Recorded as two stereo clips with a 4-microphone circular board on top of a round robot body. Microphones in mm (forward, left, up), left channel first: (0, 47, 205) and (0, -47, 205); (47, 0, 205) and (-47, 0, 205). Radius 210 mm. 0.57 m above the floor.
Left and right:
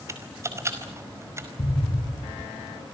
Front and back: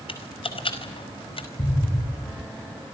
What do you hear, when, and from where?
0.1 s typing on a keyboard: 25° right, 5 m
1.6 s an explosion: 40° left, 2.5 m